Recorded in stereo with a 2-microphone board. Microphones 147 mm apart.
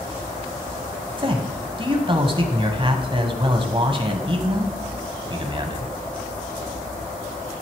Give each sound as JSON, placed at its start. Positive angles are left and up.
{"t": 1.2, "sound": "a man speaking", "side_deg": -35, "distance_m": 1.2}